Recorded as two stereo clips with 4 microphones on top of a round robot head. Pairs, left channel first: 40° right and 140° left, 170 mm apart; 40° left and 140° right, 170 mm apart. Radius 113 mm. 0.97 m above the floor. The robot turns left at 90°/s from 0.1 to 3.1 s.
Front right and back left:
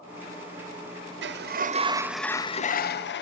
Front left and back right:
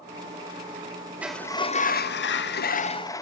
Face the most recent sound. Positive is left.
turn(degrees=-35)